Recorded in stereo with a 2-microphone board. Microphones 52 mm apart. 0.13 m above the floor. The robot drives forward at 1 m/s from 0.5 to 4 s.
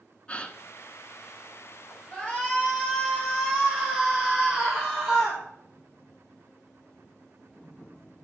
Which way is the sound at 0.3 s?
25° left (ahead or behind).